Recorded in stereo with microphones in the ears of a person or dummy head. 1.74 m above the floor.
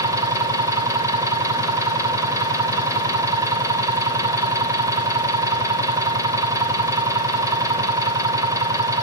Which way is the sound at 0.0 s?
20° right (ahead or behind).